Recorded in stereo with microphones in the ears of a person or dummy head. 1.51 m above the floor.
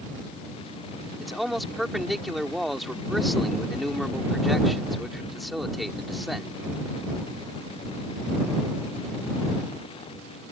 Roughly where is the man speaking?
Centre.